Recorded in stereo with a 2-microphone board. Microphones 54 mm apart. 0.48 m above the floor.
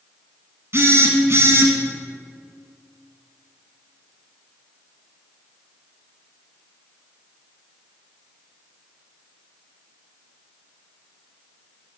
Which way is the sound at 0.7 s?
55° right (ahead or behind).